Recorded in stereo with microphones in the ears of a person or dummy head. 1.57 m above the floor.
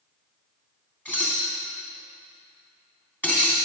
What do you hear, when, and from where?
1.1 s dishes clattering: 10° left (ahead or behind), 3 m